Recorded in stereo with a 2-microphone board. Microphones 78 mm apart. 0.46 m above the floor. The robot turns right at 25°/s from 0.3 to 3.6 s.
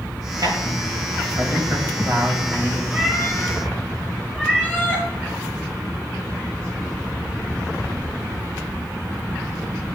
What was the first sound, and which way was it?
A man speaking, 65° right (ahead or behind).